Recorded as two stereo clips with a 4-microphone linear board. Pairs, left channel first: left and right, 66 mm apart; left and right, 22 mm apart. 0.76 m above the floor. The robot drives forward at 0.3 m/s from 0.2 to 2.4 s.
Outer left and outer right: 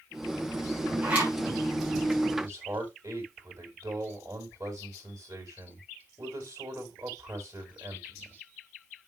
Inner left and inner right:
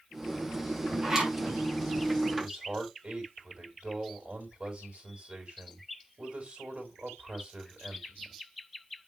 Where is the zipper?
25° right (ahead or behind), 5.5 m.